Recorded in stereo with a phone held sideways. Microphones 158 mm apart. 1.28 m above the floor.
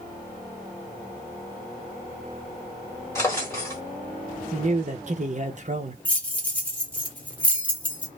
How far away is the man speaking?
About 0.8 m.